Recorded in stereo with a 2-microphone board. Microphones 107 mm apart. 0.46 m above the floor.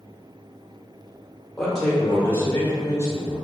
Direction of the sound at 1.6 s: Centre (ahead or behind).